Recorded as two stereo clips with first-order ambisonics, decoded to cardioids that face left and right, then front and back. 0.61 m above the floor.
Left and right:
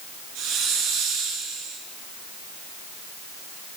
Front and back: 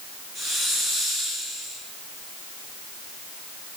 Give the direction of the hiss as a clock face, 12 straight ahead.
4 o'clock.